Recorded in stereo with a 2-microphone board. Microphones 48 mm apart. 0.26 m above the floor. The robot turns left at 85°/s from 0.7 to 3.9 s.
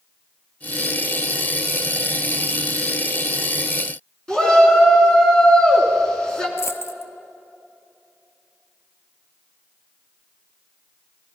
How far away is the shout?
About 3 m.